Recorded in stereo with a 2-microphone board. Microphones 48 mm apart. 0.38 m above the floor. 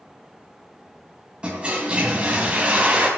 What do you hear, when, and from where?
1.4 s a toilet flushing: 20° right (ahead or behind), 3 m